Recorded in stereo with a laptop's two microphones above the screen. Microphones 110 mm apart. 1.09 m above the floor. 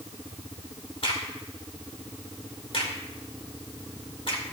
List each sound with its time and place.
1.0 s a crack: 55° left (ahead or behind), 2.5 m